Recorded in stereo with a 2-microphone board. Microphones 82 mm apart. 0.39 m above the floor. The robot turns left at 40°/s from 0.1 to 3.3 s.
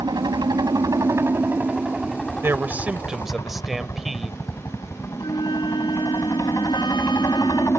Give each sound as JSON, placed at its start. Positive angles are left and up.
{"t": 0.0, "sound": "a helicopter", "azimuth_deg": -95}
{"t": 2.4, "sound": "a man speaking", "azimuth_deg": -140}
{"t": 5.2, "sound": "a flute", "side_deg": 70}